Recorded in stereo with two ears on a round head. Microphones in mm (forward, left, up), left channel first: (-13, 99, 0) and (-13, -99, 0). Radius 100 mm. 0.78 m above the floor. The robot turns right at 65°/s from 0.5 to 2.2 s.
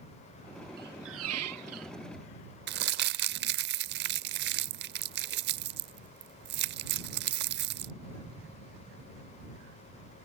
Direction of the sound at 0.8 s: 135° right.